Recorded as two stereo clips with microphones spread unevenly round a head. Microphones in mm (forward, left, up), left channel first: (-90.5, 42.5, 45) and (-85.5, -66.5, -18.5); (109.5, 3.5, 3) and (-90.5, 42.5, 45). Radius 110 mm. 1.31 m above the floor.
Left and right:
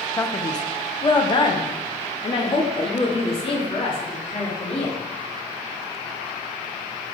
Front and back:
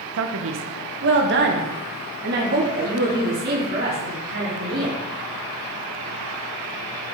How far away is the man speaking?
About 0.7 m.